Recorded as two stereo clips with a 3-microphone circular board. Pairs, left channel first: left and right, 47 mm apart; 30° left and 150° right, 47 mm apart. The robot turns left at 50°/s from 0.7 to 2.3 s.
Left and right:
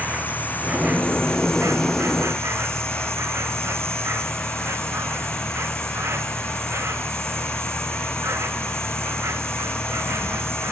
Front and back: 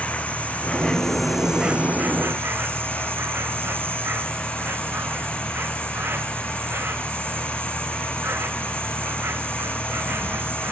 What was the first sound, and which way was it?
An insect, 30° right.